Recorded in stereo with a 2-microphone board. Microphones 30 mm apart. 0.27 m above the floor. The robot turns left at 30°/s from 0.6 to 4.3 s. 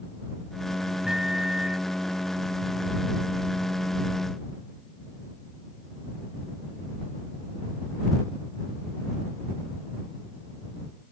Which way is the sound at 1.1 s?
25° right (ahead or behind).